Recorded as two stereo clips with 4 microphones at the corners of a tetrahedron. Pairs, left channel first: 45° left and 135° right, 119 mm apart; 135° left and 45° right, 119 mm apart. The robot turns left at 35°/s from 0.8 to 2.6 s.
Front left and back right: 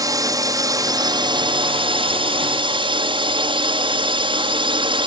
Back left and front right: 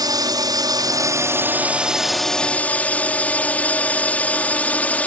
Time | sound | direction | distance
0.0 | a drone | 90° right | ?